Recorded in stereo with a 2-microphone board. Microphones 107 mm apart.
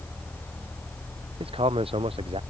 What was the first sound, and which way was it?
A man speaking, 60° right (ahead or behind).